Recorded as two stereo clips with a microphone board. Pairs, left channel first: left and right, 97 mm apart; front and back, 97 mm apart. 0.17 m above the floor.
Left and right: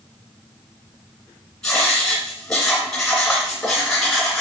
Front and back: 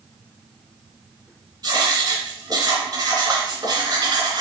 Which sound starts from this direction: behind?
Writing, at 1.6 s.